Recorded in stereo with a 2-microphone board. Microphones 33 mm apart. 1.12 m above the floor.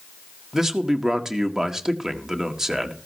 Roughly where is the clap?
No clap in this recording.